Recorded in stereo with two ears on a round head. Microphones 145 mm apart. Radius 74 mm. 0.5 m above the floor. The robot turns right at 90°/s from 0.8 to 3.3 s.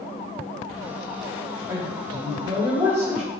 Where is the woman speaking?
155° right, 1.3 m; by 3.3 s 10° right, 1.3 m.